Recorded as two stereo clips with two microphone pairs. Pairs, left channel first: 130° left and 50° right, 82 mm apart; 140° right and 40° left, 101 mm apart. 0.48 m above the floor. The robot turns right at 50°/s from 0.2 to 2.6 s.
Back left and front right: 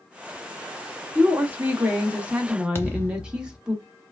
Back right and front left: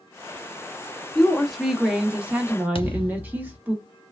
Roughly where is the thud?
Behind.